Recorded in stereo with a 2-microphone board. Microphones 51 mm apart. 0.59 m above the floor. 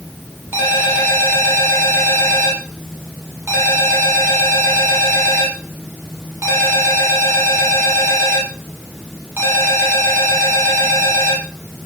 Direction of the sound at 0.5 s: 50° right (ahead or behind).